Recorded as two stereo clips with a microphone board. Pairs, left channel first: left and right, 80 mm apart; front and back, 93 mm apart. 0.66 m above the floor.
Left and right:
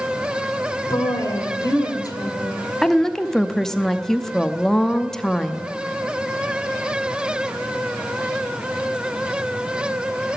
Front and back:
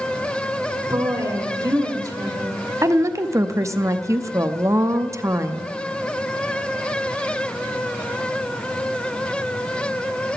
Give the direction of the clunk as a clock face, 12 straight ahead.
No clunk in this recording.